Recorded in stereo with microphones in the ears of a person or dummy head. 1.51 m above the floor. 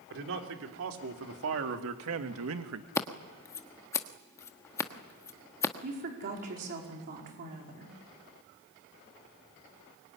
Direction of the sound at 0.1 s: 70° right (ahead or behind).